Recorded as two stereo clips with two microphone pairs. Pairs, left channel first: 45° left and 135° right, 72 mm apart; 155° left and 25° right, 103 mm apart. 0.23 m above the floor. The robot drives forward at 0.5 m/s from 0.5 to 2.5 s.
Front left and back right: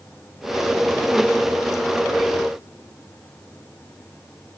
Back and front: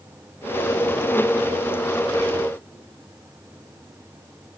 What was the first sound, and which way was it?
Only background noise.